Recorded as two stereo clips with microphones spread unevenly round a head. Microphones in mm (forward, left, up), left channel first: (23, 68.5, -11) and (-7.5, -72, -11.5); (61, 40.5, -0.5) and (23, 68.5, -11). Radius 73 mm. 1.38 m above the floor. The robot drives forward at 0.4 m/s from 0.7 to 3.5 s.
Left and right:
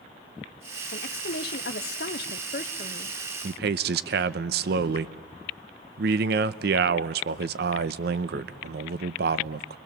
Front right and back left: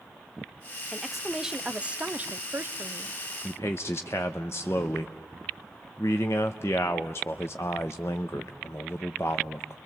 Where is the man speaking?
90° right, 0.9 m.